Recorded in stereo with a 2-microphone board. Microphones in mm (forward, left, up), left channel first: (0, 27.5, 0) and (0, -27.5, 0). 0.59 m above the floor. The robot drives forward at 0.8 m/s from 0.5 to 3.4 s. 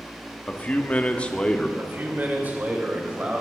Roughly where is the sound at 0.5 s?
Left.